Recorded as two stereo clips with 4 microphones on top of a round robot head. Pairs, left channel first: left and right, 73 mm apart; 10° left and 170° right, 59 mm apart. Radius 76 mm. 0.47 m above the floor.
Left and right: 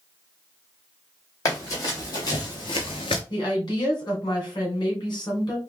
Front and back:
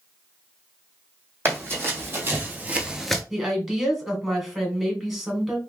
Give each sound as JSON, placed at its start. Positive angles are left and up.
{"t": 1.4, "sound": "running footsteps", "azimuth_deg": 145, "distance_m": 1.9}
{"t": 3.3, "sound": "a woman speaking", "azimuth_deg": 110, "distance_m": 2.0}